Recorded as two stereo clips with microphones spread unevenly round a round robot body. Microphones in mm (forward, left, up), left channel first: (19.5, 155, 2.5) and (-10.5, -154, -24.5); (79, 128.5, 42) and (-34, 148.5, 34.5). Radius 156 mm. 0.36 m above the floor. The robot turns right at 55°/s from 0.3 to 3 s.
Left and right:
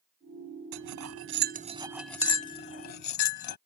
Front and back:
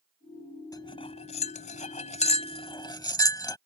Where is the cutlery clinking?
80° right; by 3.6 s 45° left.